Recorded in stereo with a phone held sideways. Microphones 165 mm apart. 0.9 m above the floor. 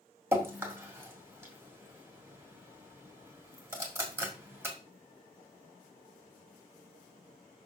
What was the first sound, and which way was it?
Dripping, 15° right (ahead or behind).